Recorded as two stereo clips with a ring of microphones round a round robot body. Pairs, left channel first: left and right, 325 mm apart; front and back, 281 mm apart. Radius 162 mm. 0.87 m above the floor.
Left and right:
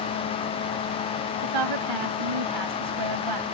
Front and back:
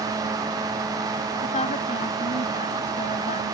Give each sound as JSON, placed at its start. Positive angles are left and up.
{"t": 1.4, "sound": "a woman speaking", "azimuth_deg": -70}